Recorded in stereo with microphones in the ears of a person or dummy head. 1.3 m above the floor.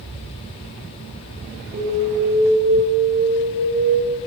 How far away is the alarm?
About 8.5 m.